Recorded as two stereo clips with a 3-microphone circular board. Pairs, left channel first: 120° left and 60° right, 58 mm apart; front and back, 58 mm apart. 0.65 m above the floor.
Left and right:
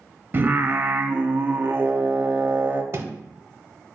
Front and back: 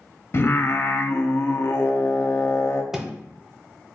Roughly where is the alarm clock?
I don't hear an alarm clock.